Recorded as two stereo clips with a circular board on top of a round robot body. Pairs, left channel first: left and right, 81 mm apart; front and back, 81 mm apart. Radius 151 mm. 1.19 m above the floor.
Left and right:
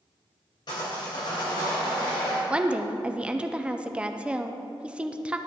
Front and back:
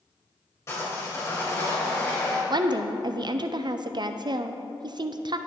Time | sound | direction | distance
0.7 | sawing | 60° left | 3 m
2.5 | a woman speaking | 165° right | 0.5 m